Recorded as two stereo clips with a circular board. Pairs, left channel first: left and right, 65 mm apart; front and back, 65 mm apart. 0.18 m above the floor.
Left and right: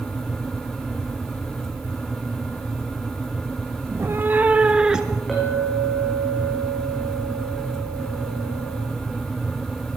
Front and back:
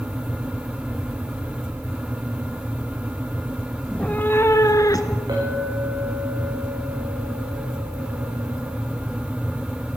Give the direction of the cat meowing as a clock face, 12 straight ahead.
3 o'clock.